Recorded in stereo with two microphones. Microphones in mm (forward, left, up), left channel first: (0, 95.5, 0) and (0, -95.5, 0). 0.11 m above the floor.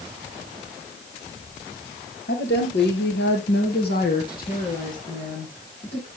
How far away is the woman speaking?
About 3.5 m.